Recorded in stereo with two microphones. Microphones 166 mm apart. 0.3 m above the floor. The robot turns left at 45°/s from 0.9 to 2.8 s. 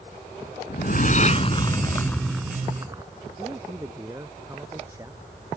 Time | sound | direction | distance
0.7 | a whoosh | 65° left | ?
3.4 | a man speaking | 20° right (ahead or behind) | ?